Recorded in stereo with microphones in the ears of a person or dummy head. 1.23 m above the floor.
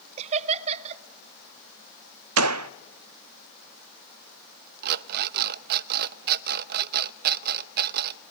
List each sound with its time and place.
0.2 s laughter: 30° right (ahead or behind), 1.0 m
2.4 s a gunshot: 85° right, 0.6 m
4.8 s an alarm clock: 50° right (ahead or behind), 0.6 m